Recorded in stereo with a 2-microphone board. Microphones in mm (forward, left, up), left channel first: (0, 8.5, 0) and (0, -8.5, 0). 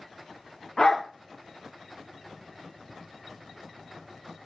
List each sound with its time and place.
0.8 s a dog barking: 50° left (ahead or behind), 3 m